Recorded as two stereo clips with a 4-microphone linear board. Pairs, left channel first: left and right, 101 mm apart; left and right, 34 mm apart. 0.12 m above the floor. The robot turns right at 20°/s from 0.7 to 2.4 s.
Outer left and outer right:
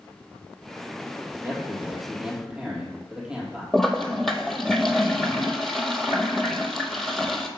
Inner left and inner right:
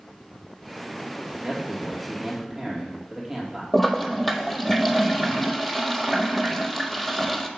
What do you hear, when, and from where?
1.4 s a man speaking: 25° right (ahead or behind), 2.5 m; by 3.6 s 5° right (ahead or behind), 2.5 m
3.7 s a toilet flushing: centre (ahead or behind), 0.6 m